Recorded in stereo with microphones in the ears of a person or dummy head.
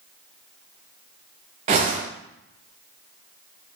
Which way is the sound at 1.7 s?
30° right (ahead or behind).